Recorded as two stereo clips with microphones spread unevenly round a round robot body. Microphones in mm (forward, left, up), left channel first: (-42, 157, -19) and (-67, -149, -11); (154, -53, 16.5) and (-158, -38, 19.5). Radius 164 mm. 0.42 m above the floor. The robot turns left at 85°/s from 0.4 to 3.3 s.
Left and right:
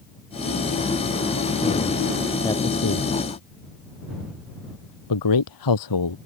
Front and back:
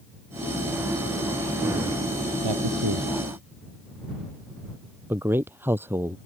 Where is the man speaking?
165° left; by 6.2 s 95° left.